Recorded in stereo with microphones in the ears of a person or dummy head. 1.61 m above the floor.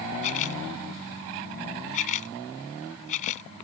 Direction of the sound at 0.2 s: 45° left (ahead or behind).